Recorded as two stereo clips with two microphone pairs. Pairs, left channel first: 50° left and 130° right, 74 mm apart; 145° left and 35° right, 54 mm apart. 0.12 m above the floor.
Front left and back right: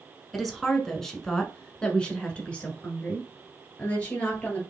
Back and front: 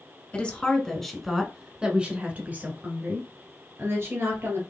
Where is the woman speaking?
130° left, 1.1 m; by 4.6 s 20° right, 2 m.